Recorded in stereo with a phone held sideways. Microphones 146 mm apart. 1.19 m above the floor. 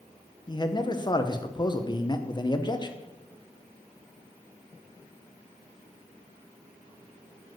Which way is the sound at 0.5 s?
30° left (ahead or behind).